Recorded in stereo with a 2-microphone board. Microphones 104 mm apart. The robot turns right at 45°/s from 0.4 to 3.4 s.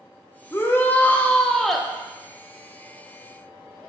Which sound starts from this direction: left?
A shout, at 0.5 s.